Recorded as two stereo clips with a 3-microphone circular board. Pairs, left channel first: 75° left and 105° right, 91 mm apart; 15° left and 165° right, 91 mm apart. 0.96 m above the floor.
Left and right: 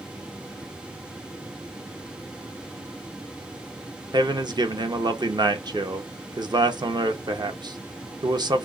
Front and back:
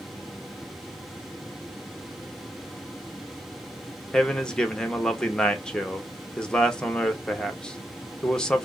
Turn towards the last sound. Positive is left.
turn(degrees=-65)